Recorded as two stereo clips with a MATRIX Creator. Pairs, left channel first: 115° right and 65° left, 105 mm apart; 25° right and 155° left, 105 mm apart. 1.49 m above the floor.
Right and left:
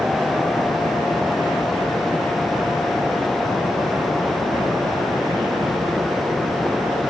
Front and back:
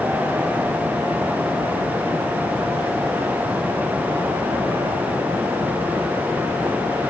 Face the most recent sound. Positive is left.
No sound to turn to.